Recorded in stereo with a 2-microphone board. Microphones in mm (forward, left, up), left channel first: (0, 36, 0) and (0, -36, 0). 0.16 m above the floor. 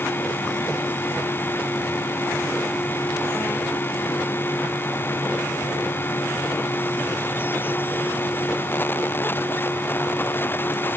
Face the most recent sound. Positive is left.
No sound to turn to.